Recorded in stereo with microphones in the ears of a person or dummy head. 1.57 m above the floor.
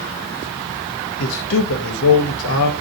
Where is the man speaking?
70° left (ahead or behind), 0.9 m.